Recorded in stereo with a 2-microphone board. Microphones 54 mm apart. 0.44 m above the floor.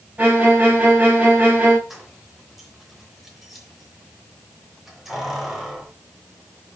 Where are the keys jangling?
5° right (ahead or behind), 3 m.